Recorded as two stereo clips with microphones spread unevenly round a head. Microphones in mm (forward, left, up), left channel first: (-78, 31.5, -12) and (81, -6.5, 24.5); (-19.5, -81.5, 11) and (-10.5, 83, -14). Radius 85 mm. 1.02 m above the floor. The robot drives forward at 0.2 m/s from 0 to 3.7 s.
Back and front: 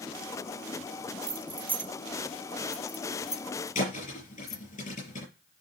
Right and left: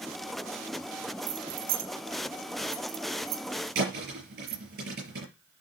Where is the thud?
120° left, 6 m.